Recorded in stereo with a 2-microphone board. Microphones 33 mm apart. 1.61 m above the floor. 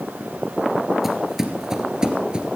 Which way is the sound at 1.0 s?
10° right (ahead or behind).